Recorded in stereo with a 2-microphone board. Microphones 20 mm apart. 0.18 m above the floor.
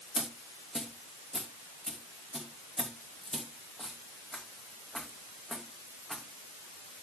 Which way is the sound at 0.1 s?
20° left (ahead or behind).